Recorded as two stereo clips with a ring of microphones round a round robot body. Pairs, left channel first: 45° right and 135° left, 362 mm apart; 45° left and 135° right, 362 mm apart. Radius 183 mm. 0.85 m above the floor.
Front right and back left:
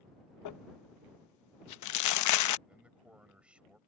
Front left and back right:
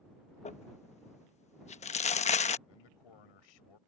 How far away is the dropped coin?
No dropped coin in this recording.